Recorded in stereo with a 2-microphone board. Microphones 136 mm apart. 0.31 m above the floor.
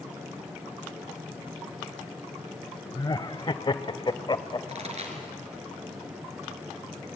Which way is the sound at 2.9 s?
30° left (ahead or behind).